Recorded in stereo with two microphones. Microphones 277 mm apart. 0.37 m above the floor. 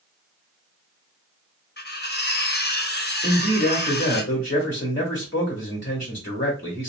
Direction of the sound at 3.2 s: 45° left (ahead or behind).